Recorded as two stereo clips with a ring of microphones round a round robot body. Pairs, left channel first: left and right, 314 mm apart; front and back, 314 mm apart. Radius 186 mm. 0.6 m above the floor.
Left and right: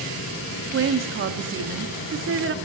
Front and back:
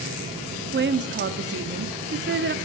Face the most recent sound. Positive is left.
turn(degrees=-130)